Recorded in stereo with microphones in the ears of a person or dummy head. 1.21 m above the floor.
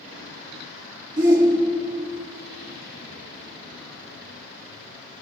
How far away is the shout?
About 3 m.